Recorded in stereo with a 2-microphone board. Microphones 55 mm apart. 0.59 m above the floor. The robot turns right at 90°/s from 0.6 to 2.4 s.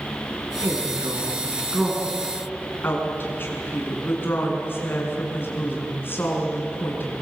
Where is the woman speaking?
120° right, 6 m; by 7.2 s 45° left, 6 m.